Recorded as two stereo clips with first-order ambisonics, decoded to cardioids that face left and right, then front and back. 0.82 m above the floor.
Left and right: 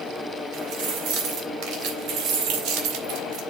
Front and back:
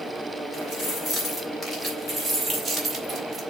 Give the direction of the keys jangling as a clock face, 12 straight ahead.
2 o'clock.